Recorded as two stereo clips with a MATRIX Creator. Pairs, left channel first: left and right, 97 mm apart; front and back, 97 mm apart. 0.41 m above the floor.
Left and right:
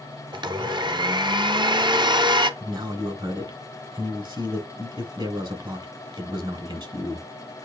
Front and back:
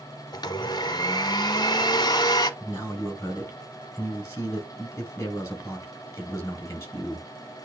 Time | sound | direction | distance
0.3 | a blender | 45° right | 0.7 m
2.6 | a man speaking | 60° right | 3 m